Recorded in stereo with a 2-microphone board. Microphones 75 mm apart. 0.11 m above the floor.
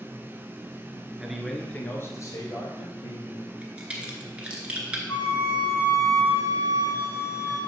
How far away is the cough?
I don't hear a cough.